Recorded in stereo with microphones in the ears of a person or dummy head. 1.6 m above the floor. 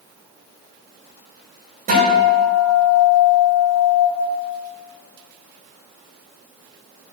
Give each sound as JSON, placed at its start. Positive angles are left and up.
{"t": 1.9, "sound": "a guitar", "side_deg": -50, "distance_m": 5.0}